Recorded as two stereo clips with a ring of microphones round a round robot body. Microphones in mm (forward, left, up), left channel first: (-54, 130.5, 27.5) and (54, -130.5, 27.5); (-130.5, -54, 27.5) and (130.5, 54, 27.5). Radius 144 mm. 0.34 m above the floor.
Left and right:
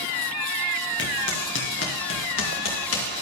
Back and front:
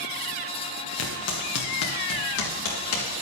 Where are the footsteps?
165° left, 2.5 m; by 3.1 s 155° left, 4 m.